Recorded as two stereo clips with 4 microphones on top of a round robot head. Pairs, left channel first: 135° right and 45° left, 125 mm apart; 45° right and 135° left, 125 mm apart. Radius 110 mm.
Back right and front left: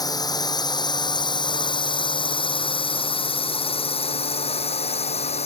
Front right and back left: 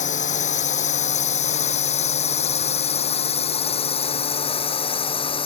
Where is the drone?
75° right; by 5.5 s 95° right.